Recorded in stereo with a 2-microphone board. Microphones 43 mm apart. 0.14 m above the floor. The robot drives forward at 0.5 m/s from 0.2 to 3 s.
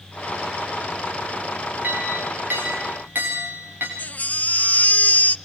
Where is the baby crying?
40° left (ahead or behind), 0.7 m.